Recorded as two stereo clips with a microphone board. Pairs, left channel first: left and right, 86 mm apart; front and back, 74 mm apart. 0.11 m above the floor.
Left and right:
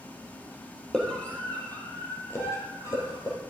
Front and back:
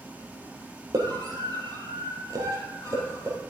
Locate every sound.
0.9 s a scream: 170° left, 4 m; by 3.4 s 135° left, 4.5 m